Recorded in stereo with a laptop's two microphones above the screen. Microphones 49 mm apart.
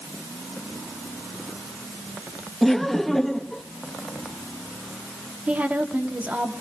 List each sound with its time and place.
2.6 s laughter: 5° left (ahead or behind), 1.3 m
5.5 s a woman speaking: 25° right (ahead or behind), 1.8 m